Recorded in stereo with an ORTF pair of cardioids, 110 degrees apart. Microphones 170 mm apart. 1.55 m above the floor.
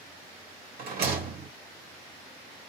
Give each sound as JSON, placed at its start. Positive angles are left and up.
{"t": 0.8, "sound": "a rattle", "azimuth_deg": -65, "distance_m": 2.5}